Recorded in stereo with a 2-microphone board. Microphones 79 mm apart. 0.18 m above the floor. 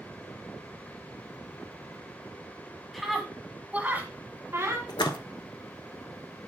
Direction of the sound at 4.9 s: 70° left (ahead or behind).